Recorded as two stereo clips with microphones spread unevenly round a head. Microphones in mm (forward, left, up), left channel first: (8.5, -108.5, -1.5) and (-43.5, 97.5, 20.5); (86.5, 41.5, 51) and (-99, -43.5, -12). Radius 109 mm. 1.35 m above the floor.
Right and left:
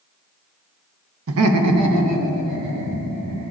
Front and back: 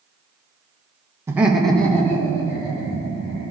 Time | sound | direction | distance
1.3 | laughter | 120° left | 0.9 m